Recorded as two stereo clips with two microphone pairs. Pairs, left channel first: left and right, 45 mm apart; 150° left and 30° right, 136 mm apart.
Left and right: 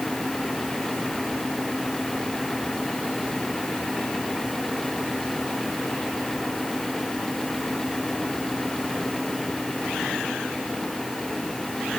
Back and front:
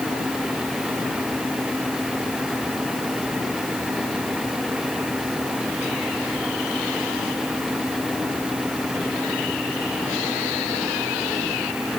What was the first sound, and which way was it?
Only background noise.